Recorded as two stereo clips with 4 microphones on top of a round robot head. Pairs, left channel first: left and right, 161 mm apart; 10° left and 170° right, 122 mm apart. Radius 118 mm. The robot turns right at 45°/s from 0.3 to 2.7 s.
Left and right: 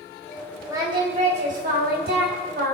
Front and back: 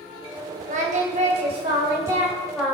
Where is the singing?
165° right, 3 m; by 2.8 s 75° right, 3 m.